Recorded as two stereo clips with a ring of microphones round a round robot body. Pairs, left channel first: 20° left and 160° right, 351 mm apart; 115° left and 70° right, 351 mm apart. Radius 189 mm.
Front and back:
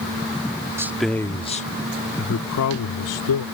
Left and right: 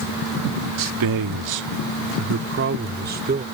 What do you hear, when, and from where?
0.8 s a man speaking: 75° right; by 3.5 s straight ahead